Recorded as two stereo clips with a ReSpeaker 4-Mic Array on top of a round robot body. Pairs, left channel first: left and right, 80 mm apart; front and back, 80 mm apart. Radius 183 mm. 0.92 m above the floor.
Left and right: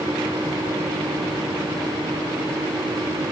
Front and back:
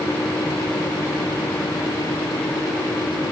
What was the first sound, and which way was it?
Only background noise.